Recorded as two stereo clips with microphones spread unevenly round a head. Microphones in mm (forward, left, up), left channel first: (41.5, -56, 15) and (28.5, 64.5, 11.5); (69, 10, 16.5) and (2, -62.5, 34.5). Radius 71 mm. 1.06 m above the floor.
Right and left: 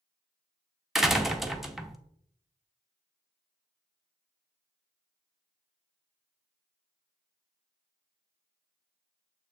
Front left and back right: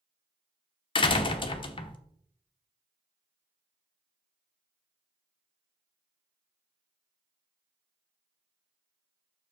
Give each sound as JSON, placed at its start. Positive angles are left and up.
{"t": 0.9, "sound": "a door slam", "azimuth_deg": 10, "distance_m": 0.9}